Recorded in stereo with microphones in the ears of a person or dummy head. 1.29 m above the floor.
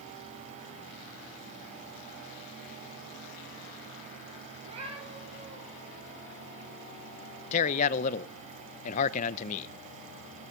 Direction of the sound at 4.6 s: 35° right (ahead or behind).